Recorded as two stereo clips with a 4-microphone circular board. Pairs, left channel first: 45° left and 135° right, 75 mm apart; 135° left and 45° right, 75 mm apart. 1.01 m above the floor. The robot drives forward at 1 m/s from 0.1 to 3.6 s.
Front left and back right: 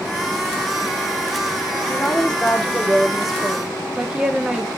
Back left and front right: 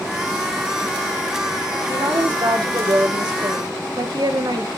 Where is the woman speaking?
30° right, 3 m; by 4.7 s 55° right, 1.8 m.